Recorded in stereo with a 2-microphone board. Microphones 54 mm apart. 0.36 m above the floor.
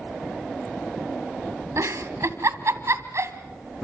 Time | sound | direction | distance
1.8 | a giggle | 70° right (ahead or behind) | 1.7 m